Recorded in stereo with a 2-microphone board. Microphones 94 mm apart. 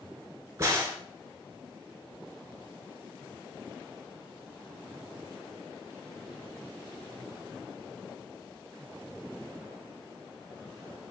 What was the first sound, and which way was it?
A crack, 30° right (ahead or behind).